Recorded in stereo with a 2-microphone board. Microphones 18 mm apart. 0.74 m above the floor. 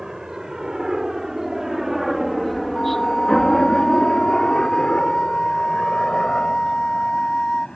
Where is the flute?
50° left (ahead or behind).